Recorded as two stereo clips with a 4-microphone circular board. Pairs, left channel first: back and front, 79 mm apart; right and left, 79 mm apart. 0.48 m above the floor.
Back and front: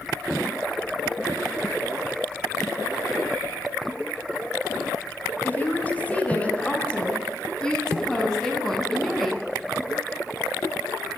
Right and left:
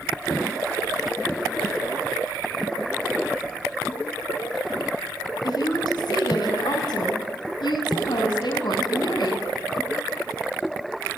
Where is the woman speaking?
115° right, 6 m; by 9.5 s 90° right, 5.5 m.